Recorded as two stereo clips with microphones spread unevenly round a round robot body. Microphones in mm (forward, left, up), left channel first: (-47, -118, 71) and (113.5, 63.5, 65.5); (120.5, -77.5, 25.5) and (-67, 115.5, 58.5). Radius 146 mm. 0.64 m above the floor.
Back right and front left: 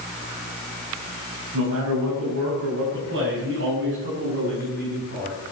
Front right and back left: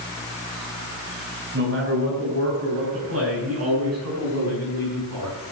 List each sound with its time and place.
1.5 s a man speaking: 85° left, 6 m; by 5.4 s 110° left, 7.5 m